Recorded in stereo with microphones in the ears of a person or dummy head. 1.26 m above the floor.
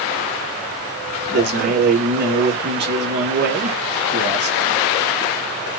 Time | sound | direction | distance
1.3 | a man speaking | 55° right (ahead or behind) | 1.6 m